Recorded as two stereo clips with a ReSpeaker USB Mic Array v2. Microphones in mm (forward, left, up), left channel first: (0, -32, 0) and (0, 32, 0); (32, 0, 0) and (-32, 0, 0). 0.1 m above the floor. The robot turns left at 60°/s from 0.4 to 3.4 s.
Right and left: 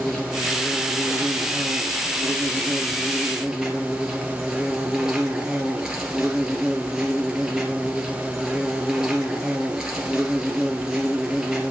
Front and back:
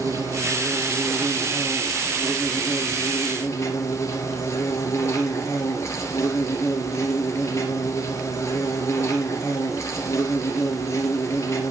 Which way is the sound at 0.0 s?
170° right.